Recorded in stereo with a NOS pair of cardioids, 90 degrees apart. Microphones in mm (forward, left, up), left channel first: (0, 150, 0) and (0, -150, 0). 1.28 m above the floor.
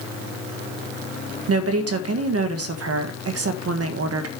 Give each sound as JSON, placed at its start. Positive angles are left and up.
{"t": 1.5, "sound": "a woman speaking", "azimuth_deg": -60, "distance_m": 1.5}